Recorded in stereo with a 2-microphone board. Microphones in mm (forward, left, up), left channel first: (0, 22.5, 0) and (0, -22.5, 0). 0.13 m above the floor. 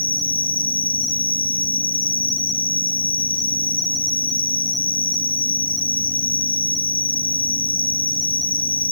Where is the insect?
25° left (ahead or behind), 6.5 m.